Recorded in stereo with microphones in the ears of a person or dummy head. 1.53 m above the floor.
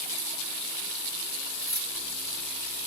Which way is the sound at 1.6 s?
20° left (ahead or behind).